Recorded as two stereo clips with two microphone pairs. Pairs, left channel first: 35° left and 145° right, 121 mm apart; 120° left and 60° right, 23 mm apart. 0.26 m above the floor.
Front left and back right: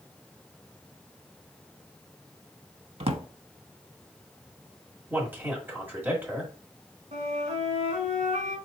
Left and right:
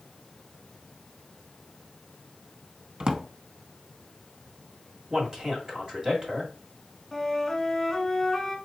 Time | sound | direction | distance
3.0 | a drawer | 115° right | 0.6 m
5.1 | a man speaking | 90° right | 1.6 m
7.1 | a flute | 155° right | 1.3 m